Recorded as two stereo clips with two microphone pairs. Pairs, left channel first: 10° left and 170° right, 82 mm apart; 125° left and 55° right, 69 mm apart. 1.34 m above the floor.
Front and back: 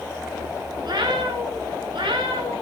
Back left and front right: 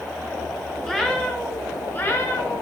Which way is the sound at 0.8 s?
150° right.